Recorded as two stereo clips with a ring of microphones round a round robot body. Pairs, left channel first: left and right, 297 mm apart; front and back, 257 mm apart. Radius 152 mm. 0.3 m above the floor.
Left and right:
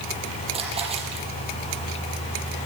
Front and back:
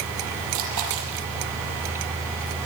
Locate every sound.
0.5 s a splash: 160° right, 7 m